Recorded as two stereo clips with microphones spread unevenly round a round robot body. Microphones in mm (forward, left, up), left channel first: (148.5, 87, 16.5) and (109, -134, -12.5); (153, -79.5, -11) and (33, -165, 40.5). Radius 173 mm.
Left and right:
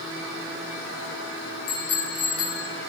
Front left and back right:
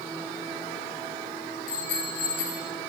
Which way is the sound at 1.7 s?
75° left.